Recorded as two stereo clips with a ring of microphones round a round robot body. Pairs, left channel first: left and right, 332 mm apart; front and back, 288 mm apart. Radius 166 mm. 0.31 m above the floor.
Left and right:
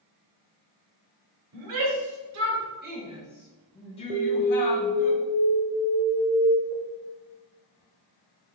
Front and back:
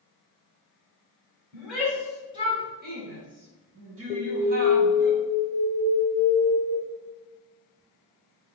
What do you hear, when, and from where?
1.5 s a shout: 90° right, 1.9 m; by 5.1 s 140° left, 2 m
4.1 s an alarm: 40° right, 0.7 m